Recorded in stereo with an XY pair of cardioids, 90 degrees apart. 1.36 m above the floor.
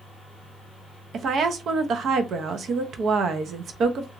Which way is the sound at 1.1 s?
65° right.